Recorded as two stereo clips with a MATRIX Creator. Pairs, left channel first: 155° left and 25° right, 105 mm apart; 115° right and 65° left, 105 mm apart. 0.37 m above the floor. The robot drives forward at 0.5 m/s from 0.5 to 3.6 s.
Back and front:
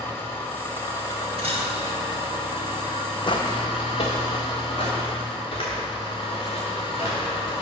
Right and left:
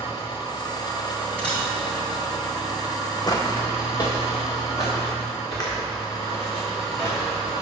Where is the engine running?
140° right, 1.4 m; by 7.6 s 165° right, 2.5 m.